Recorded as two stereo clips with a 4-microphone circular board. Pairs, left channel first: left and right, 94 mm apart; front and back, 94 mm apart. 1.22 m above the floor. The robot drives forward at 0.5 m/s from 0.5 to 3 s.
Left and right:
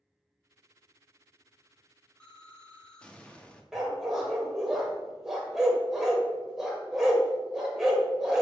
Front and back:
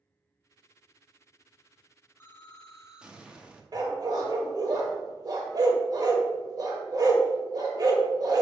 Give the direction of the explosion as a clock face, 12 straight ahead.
11 o'clock.